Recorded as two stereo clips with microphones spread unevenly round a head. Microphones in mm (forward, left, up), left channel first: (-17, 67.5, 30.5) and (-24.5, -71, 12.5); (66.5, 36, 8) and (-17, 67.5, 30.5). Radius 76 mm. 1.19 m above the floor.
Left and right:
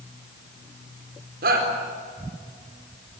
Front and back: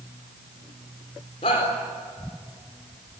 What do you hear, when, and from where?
1.4 s a shout: 65° right, 4 m